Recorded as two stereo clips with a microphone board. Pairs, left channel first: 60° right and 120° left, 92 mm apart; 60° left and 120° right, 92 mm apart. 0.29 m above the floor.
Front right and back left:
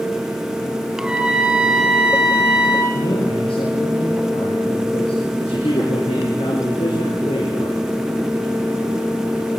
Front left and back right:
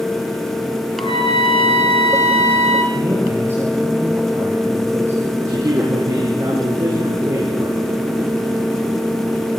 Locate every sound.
1.0 s a trumpet: 40° left, 6 m
2.9 s a man speaking: 55° right, 7 m
5.4 s a man speaking: 65° right, 6.5 m